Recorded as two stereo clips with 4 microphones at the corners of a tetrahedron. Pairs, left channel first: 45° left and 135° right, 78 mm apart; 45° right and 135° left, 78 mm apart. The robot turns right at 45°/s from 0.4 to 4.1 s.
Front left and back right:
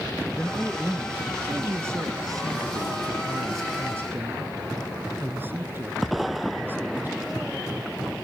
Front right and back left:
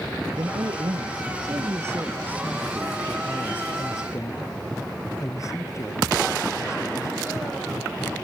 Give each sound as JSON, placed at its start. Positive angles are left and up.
{"t": 0.4, "sound": "a man speaking", "azimuth_deg": 115}